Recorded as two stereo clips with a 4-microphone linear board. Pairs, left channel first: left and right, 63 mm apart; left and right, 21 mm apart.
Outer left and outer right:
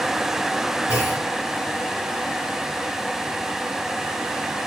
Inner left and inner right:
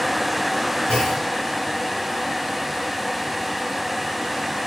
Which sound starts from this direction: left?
A clunk, at 0.9 s.